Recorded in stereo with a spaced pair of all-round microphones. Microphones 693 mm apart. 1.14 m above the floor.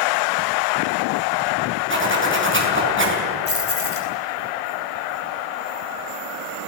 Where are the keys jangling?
55° left (ahead or behind), 5.5 m.